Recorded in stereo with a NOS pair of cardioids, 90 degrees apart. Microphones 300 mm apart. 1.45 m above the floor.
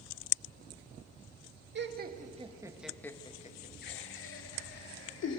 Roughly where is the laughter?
Ahead right.